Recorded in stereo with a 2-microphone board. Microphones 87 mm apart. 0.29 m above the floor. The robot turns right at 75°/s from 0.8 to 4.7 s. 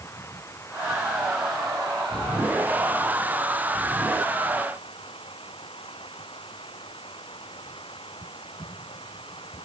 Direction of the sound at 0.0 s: 145° left.